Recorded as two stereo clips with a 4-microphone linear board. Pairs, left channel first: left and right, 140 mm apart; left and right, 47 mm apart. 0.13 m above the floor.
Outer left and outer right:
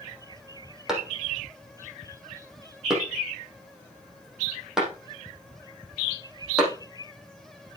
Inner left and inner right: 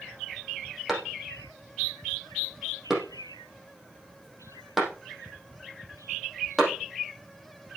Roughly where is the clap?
Centre.